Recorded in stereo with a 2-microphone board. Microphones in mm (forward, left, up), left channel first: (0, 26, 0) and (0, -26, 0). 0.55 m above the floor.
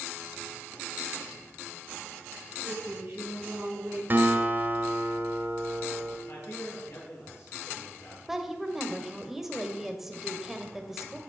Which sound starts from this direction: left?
A man speaking, at 6.3 s.